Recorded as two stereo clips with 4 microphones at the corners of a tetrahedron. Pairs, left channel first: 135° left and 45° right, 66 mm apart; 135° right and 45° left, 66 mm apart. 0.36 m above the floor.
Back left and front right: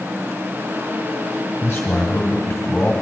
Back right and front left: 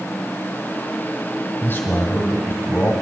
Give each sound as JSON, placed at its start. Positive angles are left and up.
{"t": 1.6, "sound": "a man speaking", "azimuth_deg": -165, "distance_m": 1.7}